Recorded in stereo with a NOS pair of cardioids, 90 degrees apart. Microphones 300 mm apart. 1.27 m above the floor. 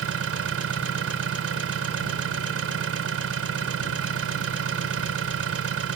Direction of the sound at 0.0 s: 50° right.